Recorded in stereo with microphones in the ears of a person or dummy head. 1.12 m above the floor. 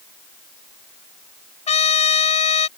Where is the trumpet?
30° left (ahead or behind).